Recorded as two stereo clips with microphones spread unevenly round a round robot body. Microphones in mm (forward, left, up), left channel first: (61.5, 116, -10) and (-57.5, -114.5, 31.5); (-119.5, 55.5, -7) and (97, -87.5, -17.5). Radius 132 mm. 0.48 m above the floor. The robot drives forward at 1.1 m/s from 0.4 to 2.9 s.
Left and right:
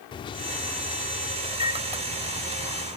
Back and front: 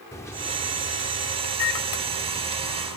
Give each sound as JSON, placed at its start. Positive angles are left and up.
{"t": 0.1, "sound": "a microwave", "azimuth_deg": 75}